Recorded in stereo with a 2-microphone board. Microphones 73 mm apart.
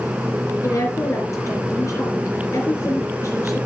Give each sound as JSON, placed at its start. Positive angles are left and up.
{"t": 0.6, "sound": "a woman speaking", "side_deg": 50, "distance_m": 3.0}